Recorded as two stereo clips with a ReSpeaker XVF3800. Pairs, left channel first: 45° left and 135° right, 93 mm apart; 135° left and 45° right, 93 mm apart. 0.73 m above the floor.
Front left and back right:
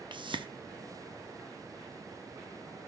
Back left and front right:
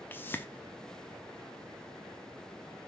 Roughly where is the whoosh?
Behind.